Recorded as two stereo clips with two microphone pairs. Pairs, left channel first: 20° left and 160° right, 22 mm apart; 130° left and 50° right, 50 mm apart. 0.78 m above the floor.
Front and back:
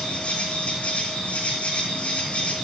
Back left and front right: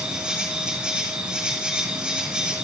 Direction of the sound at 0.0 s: 25° left.